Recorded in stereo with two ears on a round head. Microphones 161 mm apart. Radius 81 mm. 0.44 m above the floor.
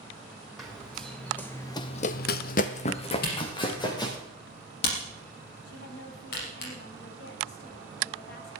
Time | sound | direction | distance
0.6 | running footsteps | centre (ahead or behind) | 2.5 m
3.2 | a camera shutter | 60° left (ahead or behind) | 5 m
5.7 | a woman speaking | 60° left (ahead or behind) | 3 m